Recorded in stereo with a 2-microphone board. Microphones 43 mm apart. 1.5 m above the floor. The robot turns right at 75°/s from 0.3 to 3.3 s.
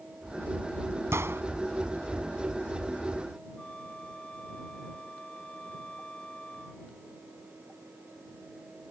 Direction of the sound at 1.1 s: 85° right.